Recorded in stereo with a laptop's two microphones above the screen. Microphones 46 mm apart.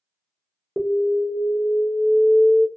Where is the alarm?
5° right (ahead or behind), 0.6 m.